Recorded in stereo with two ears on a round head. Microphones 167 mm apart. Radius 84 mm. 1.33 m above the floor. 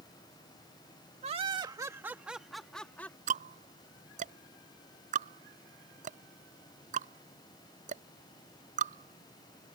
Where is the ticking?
45° right (ahead or behind).